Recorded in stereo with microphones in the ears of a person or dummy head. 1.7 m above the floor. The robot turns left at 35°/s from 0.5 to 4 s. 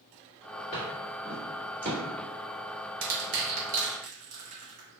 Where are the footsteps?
25° left (ahead or behind), 1.9 m; by 2.0 s 20° right (ahead or behind), 2 m.